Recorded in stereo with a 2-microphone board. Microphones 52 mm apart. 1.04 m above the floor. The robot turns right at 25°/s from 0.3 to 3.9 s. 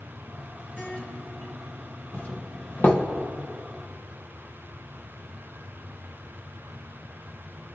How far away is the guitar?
About 3 m.